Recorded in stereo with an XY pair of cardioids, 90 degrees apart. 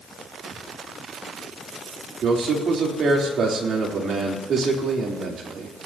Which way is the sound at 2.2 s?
60° right.